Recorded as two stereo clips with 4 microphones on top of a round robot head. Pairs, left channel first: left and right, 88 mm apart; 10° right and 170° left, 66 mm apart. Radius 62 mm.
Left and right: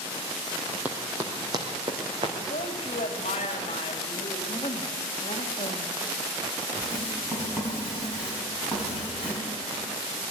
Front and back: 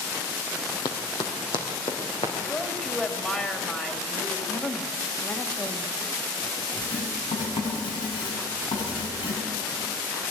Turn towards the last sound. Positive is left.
turn(degrees=-10)